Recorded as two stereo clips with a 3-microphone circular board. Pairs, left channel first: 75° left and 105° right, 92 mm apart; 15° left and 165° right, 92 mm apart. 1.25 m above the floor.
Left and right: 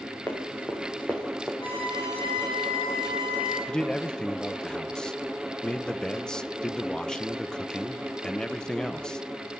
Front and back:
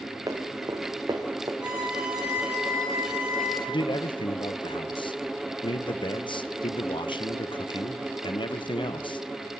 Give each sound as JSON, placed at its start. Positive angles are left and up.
{"t": 0.3, "sound": "running footsteps", "azimuth_deg": 145, "distance_m": 3.5}
{"t": 1.6, "sound": "a violin", "azimuth_deg": 115, "distance_m": 9.0}
{"t": 3.7, "sound": "a man speaking", "azimuth_deg": -5, "distance_m": 0.8}